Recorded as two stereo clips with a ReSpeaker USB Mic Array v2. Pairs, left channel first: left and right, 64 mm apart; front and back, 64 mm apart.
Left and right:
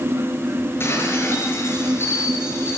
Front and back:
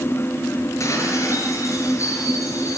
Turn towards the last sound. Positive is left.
turn(degrees=40)